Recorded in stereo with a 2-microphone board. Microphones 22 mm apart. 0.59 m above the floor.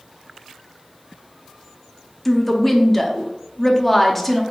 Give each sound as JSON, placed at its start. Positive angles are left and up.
{"t": 2.2, "sound": "a woman speaking", "side_deg": 5, "distance_m": 0.6}